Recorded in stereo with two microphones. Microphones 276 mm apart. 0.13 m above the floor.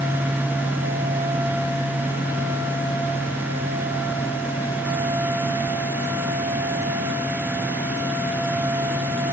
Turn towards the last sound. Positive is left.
No sound to turn to.